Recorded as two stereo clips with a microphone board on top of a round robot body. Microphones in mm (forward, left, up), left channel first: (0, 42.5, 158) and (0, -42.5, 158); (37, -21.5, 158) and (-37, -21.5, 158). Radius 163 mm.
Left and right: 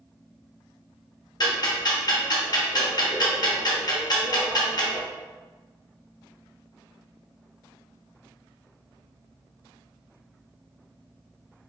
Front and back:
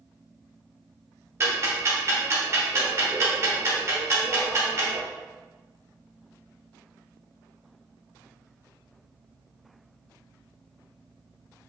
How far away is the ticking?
About 1.0 m.